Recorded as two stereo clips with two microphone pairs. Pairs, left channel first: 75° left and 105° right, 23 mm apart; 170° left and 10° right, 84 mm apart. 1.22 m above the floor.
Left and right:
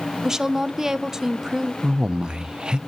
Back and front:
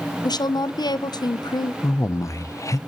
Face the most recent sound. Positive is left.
turn(degrees=-145)